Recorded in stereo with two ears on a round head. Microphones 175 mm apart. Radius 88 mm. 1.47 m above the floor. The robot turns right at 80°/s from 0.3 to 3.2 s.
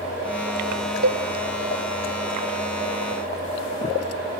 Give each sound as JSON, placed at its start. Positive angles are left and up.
{"t": 1.0, "sound": "a cowbell", "side_deg": -60, "distance_m": 1.0}